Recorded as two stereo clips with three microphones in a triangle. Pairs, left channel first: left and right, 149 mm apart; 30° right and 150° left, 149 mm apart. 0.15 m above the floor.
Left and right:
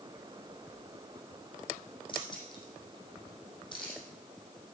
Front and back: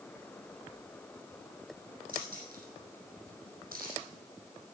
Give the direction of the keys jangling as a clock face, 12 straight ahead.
7 o'clock.